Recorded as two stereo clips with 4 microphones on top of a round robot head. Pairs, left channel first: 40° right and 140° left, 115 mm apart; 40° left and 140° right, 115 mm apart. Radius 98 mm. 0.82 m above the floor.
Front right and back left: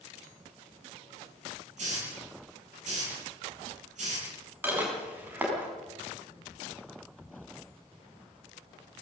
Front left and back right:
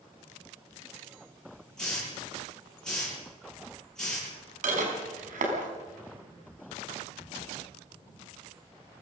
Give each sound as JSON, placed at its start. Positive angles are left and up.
{"t": 1.8, "sound": "a hiss", "azimuth_deg": 125, "distance_m": 9.5}
{"t": 4.6, "sound": "dishes clattering", "azimuth_deg": -145, "distance_m": 5.0}